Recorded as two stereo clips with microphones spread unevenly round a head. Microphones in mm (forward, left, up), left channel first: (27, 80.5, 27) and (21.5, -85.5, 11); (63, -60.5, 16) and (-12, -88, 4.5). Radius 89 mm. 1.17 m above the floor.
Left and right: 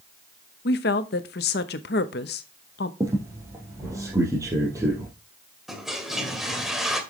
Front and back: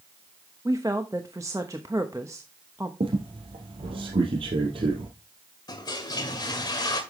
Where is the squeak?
165° right, 2.5 m.